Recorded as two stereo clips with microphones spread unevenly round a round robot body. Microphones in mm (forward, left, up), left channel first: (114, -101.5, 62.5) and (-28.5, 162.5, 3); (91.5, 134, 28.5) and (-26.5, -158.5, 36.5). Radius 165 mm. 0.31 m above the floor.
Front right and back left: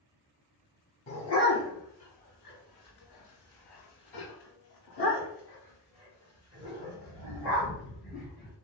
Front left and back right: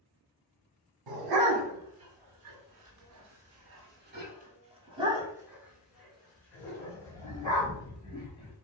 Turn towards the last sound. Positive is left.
turn(degrees=-5)